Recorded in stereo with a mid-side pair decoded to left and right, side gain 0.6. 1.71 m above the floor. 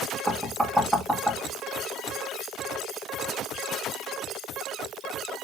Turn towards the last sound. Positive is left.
turn(degrees=-5)